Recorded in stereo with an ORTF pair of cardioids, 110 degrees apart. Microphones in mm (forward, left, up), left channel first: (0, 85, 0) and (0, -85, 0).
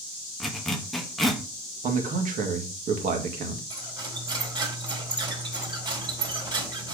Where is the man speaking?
55° right, 2.0 m.